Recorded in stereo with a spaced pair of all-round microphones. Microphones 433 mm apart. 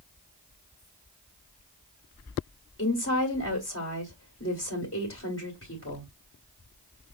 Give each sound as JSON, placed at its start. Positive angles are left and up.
{"t": 2.8, "sound": "a woman speaking", "side_deg": 30, "distance_m": 1.7}